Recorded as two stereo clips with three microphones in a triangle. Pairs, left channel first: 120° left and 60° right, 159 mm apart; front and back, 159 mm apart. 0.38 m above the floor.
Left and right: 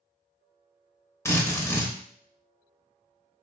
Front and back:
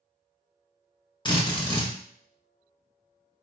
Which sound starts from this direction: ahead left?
A drill, at 1.2 s.